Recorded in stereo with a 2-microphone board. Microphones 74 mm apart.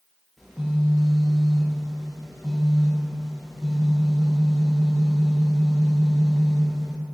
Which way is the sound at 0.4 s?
Centre (ahead or behind).